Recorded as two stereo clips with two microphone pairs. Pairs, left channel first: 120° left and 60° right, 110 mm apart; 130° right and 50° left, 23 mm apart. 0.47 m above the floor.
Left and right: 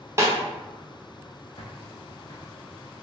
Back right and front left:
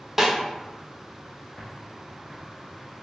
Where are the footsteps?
155° left, 1.0 m.